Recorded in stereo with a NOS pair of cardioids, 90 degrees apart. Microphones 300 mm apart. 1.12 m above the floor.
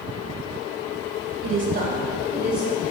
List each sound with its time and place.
1.4 s a woman speaking: 50° right, 0.7 m; by 2.8 s straight ahead, 1.5 m